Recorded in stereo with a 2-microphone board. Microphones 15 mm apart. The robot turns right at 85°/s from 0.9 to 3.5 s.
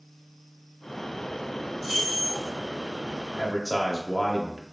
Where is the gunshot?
No gunshot in this recording.